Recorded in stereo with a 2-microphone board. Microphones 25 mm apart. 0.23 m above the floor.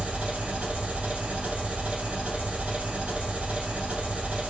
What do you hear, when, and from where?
0.0 s an engine running: 70° right (ahead or behind), 0.9 m